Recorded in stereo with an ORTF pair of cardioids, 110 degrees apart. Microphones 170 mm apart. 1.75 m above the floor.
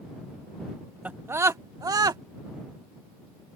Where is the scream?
10° right; by 2.2 s 25° right.